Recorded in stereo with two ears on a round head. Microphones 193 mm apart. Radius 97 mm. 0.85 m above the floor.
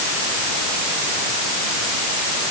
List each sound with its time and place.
Only background noise.